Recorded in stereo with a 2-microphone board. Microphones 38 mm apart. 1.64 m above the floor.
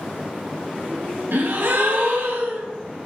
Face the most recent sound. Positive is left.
turn(degrees=-70)  # may be behind; listen again after turning